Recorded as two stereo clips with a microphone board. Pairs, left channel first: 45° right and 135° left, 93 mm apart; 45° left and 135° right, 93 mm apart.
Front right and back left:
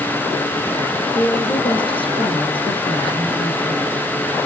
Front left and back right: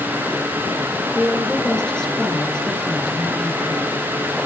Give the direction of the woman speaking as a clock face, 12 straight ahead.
1 o'clock.